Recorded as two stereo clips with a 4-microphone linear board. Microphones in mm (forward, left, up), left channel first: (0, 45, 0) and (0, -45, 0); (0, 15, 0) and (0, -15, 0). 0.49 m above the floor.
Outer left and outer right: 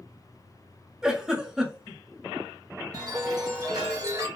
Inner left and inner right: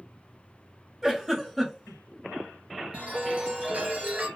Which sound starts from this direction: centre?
A giggle, at 1.0 s.